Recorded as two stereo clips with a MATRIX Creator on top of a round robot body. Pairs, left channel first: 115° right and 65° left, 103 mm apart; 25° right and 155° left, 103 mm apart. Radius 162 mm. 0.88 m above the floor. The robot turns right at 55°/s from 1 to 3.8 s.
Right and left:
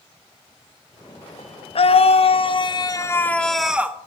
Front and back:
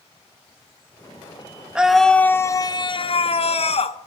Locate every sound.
1.8 s a scream: 125° right, 1.3 m; by 4.0 s 10° right, 1.3 m